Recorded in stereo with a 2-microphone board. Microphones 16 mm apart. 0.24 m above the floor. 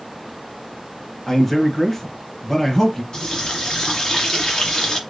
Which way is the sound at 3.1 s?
50° left (ahead or behind).